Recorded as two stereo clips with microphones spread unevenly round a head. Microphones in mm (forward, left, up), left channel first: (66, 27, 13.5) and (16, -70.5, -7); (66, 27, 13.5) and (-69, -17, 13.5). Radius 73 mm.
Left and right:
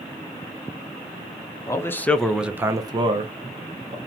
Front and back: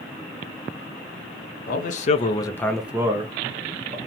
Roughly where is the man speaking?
Ahead.